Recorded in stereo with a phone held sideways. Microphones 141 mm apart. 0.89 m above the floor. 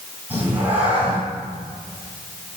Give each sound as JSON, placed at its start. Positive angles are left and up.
{"t": 0.3, "sound": "a cat meowing", "side_deg": -10, "distance_m": 3.5}